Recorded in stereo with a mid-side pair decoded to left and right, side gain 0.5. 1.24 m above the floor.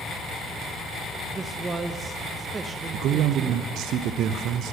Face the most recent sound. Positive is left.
turn(degrees=-65)